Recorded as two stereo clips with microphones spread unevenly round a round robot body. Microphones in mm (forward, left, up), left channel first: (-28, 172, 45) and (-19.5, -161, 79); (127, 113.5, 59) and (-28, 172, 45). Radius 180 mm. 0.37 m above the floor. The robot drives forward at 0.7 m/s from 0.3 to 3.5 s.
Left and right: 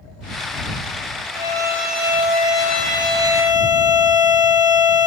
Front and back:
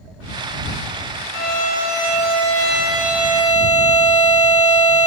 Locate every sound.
1.3 s a violin: 5° right, 2.5 m; by 5.1 s 20° right, 1.5 m